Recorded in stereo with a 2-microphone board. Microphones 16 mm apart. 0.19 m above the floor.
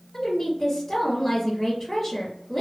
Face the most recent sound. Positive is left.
turn(degrees=15)  # may be behind; listen again after turning